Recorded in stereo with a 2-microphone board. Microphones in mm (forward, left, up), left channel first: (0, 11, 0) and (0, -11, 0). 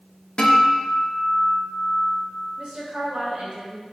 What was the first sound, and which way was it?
A guitar, 45° left (ahead or behind).